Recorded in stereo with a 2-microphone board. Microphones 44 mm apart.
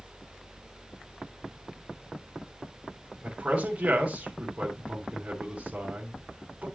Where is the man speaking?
25° right (ahead or behind), 3 m.